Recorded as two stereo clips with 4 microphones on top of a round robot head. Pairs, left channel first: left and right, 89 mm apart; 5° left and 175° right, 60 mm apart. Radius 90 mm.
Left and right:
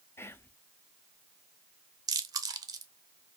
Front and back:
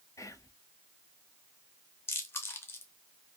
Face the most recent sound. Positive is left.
turn(degrees=-45)